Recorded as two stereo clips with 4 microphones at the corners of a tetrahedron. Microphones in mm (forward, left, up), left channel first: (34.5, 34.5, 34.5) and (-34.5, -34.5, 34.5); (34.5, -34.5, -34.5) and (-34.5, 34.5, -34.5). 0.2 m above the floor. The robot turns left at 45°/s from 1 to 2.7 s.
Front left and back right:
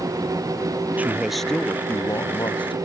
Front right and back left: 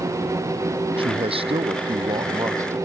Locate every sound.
1.0 s a man speaking: 150° left; by 2.8 s 75° left